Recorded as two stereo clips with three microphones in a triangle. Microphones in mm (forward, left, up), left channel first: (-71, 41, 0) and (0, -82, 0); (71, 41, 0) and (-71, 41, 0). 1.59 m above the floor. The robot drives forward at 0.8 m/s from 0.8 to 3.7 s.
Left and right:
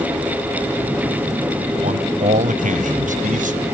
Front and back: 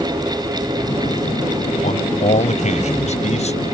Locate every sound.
1.8 s a man speaking: 30° right; by 3.6 s 40° right